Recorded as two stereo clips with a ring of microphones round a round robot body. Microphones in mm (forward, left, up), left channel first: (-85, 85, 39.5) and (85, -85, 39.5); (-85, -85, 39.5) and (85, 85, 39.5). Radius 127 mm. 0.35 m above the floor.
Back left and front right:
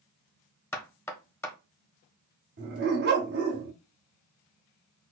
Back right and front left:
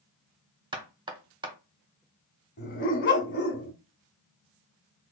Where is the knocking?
75° left, 1.0 m.